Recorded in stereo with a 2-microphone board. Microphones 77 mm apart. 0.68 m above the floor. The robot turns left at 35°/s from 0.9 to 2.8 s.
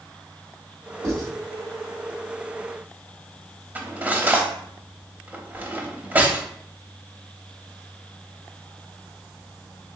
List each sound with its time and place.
1.0 s writing: 45° right (ahead or behind), 1.4 m; by 1.3 s 50° right (ahead or behind), 1.4 m
3.8 s cutlery clinking: 20° right (ahead or behind), 0.7 m